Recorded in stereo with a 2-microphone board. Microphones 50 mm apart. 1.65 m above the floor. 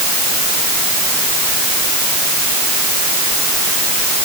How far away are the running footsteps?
No running footsteps in this recording.